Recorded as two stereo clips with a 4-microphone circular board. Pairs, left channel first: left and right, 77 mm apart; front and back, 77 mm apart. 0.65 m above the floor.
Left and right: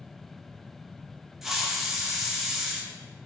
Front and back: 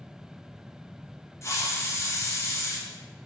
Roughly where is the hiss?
Ahead.